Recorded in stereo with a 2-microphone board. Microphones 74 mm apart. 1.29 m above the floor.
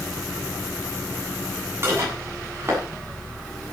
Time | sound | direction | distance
1.8 | dishes clattering | 35° right (ahead or behind) | 8 m